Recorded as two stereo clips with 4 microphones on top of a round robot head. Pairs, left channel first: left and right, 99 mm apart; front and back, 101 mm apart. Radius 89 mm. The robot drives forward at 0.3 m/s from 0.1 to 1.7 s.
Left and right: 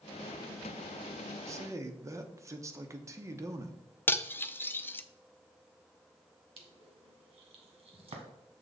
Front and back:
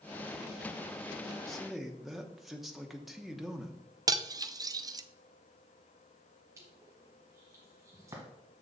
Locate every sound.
1.5 s a man speaking: 85° right, 0.9 m; by 3.8 s 90° right, 0.9 m
4.1 s cutlery clinking: 150° left, 0.6 m
6.6 s crushing: 110° right, 1.4 m